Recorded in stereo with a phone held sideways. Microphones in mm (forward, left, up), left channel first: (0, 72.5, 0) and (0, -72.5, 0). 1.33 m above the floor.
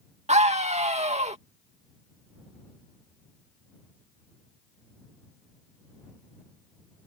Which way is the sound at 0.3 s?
50° right (ahead or behind).